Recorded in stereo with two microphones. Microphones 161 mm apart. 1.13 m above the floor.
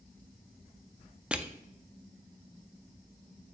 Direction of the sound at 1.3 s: 5° right (ahead or behind).